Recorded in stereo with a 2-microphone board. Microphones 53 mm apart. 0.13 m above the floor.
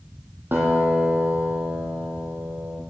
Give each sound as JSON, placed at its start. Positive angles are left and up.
{"t": 0.5, "sound": "a guitar", "side_deg": -40, "distance_m": 1.8}